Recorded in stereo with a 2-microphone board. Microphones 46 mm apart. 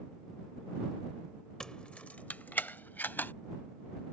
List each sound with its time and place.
1.6 s keys jangling: 15° left (ahead or behind); by 3.3 s 45° left (ahead or behind)